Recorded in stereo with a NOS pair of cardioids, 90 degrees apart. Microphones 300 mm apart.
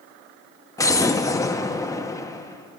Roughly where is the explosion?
Ahead.